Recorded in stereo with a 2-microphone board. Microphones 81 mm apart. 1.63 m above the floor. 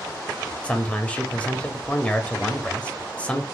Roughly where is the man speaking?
Centre.